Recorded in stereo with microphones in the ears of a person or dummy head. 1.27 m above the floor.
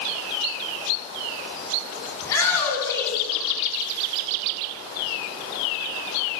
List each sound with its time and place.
2.2 s a shout: 20° left (ahead or behind), 9.5 m